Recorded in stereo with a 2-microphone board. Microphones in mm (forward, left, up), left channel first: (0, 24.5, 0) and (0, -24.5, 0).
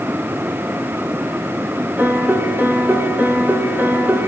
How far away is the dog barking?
I don't hear a dog barking.